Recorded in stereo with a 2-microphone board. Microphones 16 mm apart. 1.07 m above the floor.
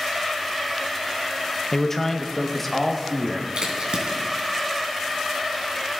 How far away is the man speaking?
About 0.7 m.